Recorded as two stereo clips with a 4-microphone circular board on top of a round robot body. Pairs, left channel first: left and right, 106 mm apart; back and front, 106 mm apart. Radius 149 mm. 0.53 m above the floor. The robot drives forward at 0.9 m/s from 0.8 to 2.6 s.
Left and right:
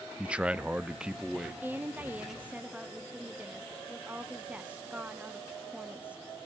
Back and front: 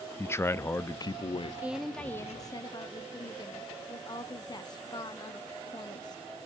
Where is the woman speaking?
50° right, 0.9 m; by 6.2 s 160° right, 1.1 m.